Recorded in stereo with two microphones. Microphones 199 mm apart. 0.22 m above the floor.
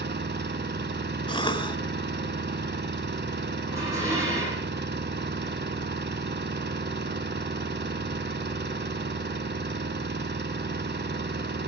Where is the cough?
25° left (ahead or behind), 1.4 m.